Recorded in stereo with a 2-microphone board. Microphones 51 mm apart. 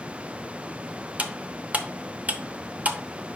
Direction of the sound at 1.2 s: 30° right (ahead or behind).